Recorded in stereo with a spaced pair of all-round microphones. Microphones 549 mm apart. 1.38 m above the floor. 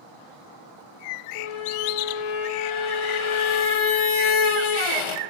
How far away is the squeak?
About 0.5 m.